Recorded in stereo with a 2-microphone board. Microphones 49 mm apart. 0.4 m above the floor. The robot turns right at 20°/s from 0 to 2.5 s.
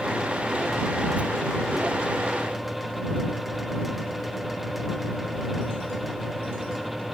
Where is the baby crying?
I don't hear a baby crying.